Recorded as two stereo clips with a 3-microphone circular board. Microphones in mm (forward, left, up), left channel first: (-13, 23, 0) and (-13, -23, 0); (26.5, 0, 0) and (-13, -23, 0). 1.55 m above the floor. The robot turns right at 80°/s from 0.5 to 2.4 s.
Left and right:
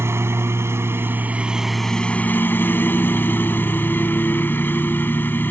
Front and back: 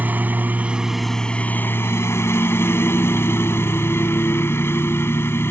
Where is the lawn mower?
100° right; by 5.5 s 50° left.